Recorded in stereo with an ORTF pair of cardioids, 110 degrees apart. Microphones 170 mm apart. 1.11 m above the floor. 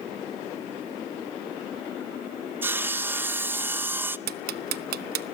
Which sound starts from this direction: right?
Ticking, at 4.3 s.